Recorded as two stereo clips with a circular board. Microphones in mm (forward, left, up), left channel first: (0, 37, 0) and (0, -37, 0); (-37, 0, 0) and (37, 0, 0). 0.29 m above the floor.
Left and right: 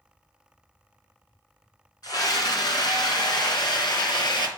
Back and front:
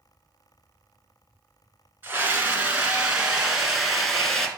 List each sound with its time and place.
2.0 s a scream: 65° left, 3 m; by 4.5 s 95° left, 3 m